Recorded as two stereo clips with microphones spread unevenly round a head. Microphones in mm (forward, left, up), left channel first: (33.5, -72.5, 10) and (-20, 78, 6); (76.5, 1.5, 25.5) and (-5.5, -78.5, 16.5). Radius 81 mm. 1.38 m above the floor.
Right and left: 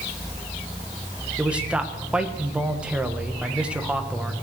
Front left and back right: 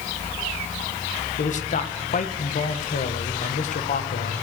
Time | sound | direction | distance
1.4 | a man speaking | 25° left | 1.3 m